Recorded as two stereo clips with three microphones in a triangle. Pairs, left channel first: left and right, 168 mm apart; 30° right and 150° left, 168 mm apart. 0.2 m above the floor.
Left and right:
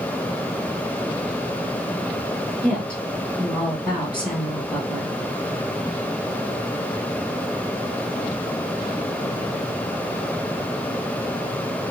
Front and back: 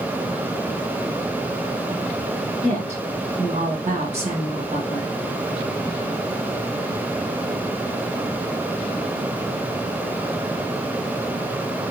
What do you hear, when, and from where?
2.6 s a woman speaking: 170° left, 2 m